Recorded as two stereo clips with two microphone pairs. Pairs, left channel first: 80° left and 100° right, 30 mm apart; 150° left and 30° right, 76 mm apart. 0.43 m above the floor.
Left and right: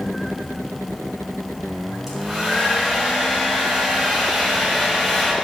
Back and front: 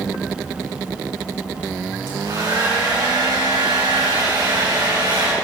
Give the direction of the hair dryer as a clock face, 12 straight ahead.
1 o'clock.